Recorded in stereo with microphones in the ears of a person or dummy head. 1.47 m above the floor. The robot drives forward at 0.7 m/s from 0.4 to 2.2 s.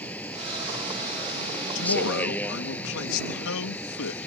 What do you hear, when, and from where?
0.0 s a vehicle: 10° left (ahead or behind)
1.8 s a man speaking: 75° left (ahead or behind); by 4.3 s 80° left